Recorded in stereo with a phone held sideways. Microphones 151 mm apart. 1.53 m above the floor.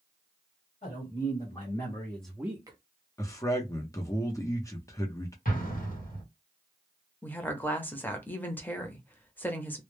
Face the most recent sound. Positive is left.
turn(degrees=10)  # may be behind; listen again after turning